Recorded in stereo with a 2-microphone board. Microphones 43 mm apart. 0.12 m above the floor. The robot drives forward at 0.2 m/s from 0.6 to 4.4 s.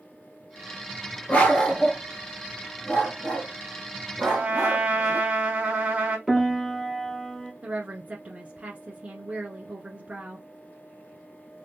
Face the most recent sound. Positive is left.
turn(degrees=-35)  # may be behind; listen again after turning